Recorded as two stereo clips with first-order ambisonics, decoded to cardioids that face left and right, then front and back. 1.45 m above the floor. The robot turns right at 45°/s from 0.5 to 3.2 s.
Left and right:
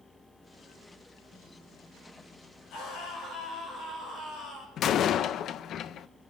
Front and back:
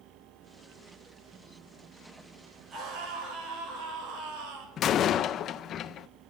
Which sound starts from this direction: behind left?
A scream, at 2.7 s.